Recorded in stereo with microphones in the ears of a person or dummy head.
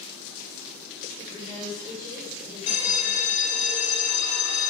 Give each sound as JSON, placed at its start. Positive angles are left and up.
{"t": 1.2, "sound": "a woman speaking", "side_deg": 30, "distance_m": 4.5}
{"t": 2.7, "sound": "a bell", "side_deg": 45, "distance_m": 1.6}